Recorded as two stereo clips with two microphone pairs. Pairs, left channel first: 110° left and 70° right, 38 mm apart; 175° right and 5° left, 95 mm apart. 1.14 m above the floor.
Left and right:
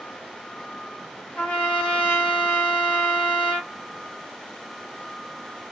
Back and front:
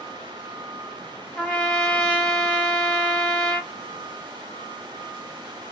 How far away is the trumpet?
About 1.5 m.